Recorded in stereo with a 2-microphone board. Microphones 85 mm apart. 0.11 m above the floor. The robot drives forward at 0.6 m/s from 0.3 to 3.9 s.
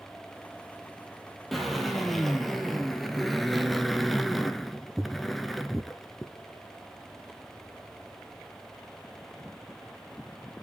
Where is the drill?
Centre (ahead or behind), 2 m.